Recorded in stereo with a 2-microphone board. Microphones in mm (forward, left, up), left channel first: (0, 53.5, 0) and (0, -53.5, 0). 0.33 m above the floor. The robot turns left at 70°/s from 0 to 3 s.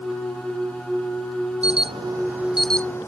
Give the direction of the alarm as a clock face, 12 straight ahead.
4 o'clock.